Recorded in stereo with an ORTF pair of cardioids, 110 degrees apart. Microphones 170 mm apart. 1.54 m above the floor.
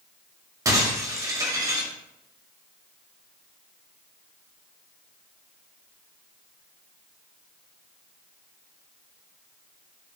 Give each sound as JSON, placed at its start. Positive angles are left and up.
{"t": 0.7, "sound": "breaking glass", "azimuth_deg": -20, "distance_m": 4.0}